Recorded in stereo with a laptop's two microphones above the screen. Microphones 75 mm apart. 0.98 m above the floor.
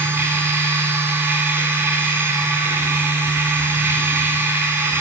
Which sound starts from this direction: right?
A machine running, at 0.0 s.